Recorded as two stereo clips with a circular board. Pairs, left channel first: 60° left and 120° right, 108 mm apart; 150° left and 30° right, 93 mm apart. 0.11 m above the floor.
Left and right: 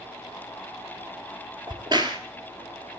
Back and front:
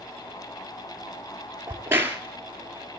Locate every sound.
1.7 s a crack: 90° right, 1.9 m